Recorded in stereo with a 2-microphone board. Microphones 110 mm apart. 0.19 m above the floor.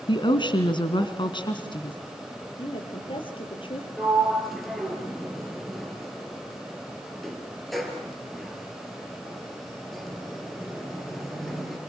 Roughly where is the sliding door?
Centre.